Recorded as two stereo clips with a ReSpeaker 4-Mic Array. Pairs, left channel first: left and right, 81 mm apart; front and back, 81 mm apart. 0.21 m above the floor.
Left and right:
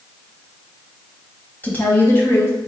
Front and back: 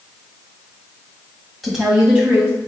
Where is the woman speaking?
95° left, 1.1 m; by 2.7 s 120° left, 1.3 m.